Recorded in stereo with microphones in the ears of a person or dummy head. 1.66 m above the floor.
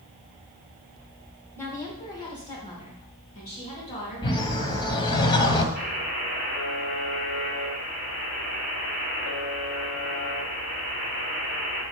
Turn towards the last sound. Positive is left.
turn(degrees=65)  # may be behind; listen again after turning